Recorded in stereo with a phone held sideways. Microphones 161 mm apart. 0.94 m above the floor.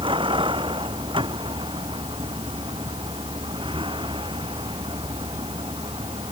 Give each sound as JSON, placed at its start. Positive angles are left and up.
{"t": 0.0, "sound": "a vehicle", "side_deg": -30}